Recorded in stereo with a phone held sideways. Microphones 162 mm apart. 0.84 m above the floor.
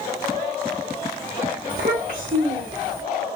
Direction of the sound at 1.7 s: 55° right (ahead or behind).